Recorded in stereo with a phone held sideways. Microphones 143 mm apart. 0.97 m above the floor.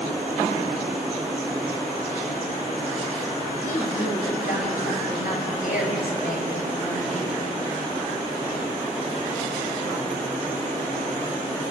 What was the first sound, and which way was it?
A woman speaking, 65° left (ahead or behind).